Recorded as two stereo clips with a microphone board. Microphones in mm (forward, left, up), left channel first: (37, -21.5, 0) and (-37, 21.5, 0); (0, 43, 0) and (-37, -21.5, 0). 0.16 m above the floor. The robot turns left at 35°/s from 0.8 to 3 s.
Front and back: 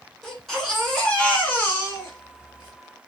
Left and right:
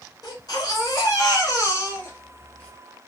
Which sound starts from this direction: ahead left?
A baby crying, at 0.2 s.